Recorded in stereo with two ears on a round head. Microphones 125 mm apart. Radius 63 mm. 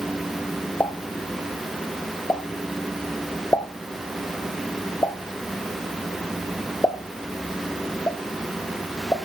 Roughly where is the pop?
Centre.